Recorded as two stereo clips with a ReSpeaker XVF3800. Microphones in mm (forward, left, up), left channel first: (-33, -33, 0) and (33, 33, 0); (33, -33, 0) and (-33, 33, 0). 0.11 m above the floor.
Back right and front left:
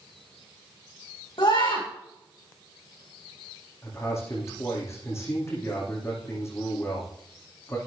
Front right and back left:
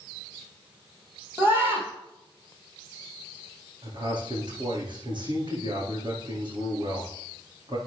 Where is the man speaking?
165° left, 8 m.